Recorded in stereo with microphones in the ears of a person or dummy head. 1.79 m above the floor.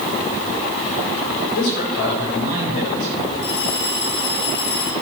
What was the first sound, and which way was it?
A man speaking, 70° left (ahead or behind).